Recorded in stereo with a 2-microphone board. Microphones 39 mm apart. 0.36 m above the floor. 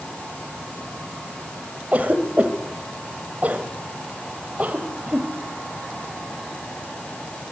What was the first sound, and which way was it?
A cough, 40° right (ahead or behind).